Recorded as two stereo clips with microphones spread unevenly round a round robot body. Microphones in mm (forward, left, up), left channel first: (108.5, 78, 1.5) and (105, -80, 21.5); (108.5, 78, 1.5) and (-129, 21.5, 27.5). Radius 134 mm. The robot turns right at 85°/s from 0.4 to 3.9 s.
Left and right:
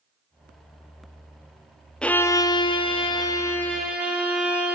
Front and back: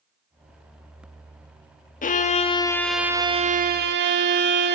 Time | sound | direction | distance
2.0 | a violin | 15° left | 0.6 m